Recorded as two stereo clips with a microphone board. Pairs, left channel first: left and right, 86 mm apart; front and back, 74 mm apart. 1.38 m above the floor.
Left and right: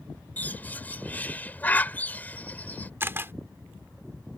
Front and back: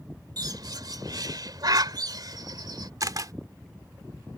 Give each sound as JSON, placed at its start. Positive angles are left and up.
{"t": 0.4, "sound": "a bird", "azimuth_deg": 160}
{"t": 3.0, "sound": "a camera shutter", "azimuth_deg": -150}